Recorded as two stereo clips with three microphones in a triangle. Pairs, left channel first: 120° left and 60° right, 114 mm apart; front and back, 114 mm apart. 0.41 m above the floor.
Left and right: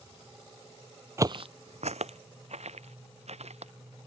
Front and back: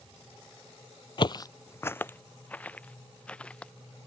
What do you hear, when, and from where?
1.2 s footsteps: 5° right; by 3.7 s 80° right